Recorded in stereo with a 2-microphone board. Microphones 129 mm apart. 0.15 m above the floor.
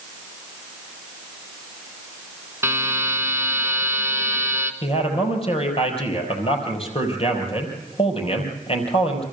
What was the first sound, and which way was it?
A buzzer, 20° right (ahead or behind).